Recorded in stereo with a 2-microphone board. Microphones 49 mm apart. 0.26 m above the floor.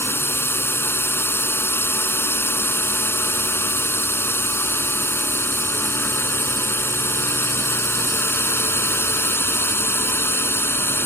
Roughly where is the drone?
Left.